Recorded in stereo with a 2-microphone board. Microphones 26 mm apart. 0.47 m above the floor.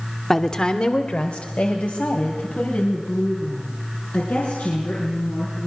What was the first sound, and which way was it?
A woman speaking, 15° left (ahead or behind).